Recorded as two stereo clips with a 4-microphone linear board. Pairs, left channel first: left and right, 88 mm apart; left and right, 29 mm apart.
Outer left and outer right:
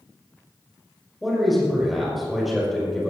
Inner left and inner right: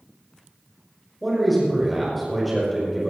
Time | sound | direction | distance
1.2 | a man speaking | centre (ahead or behind) | 5.5 m